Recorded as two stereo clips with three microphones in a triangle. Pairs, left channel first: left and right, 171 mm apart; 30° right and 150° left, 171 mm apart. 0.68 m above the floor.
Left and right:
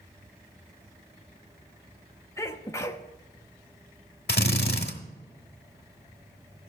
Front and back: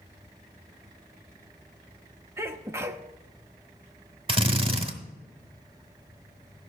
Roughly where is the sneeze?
Behind left.